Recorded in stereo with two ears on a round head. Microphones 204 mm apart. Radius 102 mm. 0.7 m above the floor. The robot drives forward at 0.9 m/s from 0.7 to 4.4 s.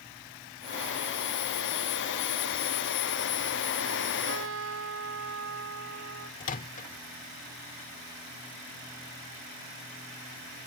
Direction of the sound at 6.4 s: 35° left (ahead or behind).